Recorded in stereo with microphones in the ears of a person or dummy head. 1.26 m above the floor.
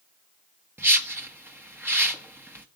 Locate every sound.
0.8 s a whoosh: 10° right (ahead or behind), 1.3 m